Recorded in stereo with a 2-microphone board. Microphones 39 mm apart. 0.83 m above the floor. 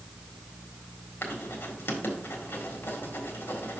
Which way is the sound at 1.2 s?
75° left (ahead or behind).